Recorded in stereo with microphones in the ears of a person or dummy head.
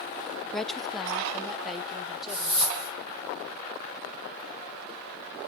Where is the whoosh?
25° right (ahead or behind), 3.5 m.